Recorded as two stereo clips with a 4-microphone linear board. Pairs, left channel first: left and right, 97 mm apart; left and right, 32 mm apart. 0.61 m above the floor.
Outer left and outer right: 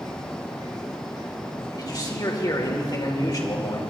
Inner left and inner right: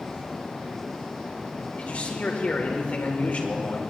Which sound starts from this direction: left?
A man speaking, at 1.8 s.